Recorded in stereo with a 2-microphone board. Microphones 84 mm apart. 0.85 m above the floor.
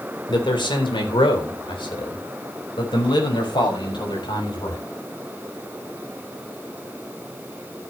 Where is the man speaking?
70° left (ahead or behind), 3 m; by 4.8 s 65° left (ahead or behind), 5.5 m.